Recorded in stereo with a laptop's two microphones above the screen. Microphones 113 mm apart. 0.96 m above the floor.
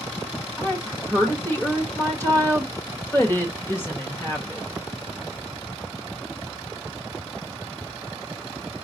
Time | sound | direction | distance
0.6 | a woman speaking | 20° left (ahead or behind) | 1.0 m